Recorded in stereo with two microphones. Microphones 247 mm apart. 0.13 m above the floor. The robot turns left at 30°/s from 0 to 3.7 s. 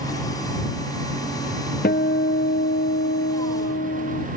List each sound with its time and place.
1.8 s a guitar: 130° left; by 4.3 s 75° left